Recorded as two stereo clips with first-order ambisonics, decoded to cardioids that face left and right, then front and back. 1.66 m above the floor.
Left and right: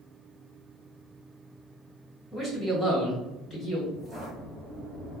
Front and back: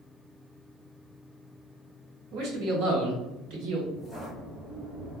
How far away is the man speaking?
About 1.5 m.